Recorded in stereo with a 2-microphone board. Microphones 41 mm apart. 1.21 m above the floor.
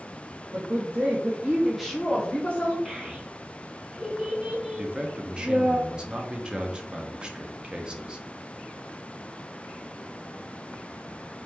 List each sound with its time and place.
0.5 s a woman speaking: 70° right (ahead or behind), 1.0 m; by 2.8 s 35° left (ahead or behind), 1.2 m
2.9 s a child speaking: 15° right (ahead or behind), 1.3 m
4.8 s a man speaking: 25° right (ahead or behind), 0.6 m